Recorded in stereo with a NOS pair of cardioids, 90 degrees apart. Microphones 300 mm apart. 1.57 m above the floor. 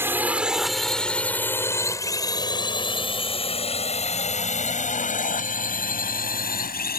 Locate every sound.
0.0 s a drone: 10° right; by 7.0 s 30° left